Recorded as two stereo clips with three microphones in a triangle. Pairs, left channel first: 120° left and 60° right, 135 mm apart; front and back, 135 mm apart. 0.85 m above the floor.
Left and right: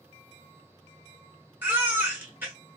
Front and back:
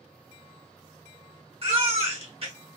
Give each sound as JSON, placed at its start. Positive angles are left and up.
{"t": 1.6, "sound": "a baby crying", "azimuth_deg": -135, "distance_m": 1.0}